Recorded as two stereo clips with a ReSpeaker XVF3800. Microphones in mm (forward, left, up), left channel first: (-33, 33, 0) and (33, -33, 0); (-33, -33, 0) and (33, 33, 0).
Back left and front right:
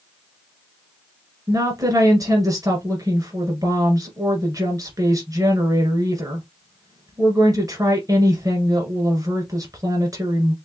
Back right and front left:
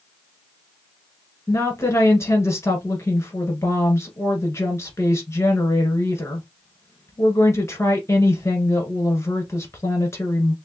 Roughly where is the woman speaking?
Right.